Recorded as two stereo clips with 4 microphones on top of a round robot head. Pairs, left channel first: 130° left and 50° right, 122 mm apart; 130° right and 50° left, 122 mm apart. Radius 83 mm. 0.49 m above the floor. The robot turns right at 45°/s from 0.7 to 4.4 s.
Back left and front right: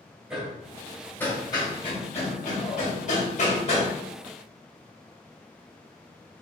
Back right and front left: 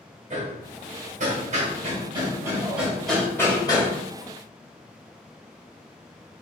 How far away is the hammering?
About 1.8 m.